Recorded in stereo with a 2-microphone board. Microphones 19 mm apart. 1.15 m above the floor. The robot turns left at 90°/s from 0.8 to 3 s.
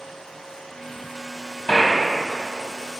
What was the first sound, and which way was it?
A gunshot, 120° left.